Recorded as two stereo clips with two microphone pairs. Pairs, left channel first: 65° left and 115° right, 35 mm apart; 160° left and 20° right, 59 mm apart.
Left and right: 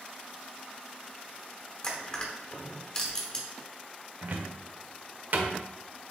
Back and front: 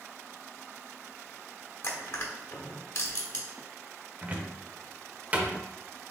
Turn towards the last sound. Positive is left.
turn(degrees=-80)